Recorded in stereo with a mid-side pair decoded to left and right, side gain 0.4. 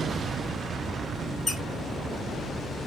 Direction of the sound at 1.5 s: 30° left.